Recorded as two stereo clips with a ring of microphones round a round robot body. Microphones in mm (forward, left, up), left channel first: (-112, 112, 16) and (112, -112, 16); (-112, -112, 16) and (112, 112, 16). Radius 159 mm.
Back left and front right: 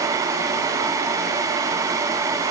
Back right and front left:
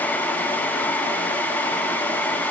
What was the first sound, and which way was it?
Only background noise.